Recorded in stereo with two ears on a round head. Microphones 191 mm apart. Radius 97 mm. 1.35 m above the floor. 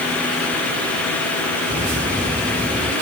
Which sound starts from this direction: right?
Footsteps, at 1.7 s.